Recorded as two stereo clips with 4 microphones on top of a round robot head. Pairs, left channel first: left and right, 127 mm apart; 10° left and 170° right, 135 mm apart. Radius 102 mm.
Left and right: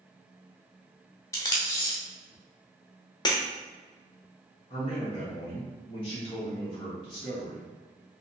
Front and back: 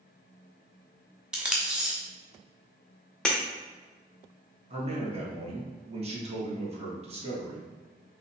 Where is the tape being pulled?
115° left, 0.5 m.